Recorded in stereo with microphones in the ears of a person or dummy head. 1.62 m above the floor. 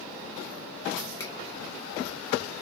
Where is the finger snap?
15° left (ahead or behind), 1.5 m.